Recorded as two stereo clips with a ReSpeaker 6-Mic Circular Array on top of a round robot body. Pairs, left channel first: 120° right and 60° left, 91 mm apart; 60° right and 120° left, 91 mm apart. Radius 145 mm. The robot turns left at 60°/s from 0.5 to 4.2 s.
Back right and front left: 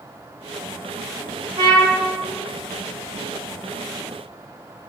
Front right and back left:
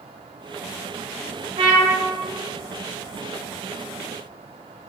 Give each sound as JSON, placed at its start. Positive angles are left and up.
{"t": 1.6, "sound": "a trumpet", "azimuth_deg": 90, "distance_m": 0.8}